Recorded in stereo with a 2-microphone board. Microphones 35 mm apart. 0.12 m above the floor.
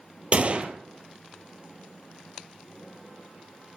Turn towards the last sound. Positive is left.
turn(degrees=-40)  # may be behind; listen again after turning